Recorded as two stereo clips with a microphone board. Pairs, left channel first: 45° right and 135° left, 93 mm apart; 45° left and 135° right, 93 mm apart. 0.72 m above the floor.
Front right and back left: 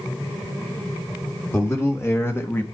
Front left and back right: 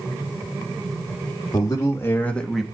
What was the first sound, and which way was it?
A man speaking, 10° left.